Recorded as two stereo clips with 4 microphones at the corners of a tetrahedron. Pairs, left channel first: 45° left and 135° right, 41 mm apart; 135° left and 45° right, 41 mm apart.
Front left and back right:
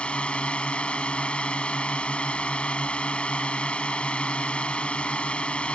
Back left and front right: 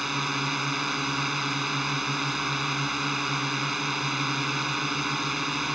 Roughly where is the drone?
Ahead left.